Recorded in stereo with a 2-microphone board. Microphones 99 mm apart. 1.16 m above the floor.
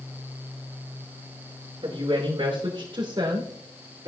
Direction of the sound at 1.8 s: 60° right (ahead or behind).